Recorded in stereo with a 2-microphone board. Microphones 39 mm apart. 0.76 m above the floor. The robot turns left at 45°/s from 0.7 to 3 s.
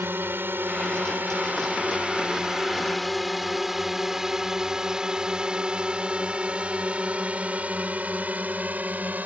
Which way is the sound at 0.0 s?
65° right (ahead or behind).